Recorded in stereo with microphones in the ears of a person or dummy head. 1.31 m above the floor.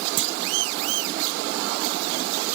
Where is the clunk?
50° right (ahead or behind), 0.7 m.